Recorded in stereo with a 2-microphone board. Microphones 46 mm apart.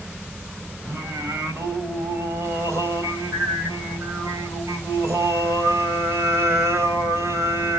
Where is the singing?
80° right, 3.5 m.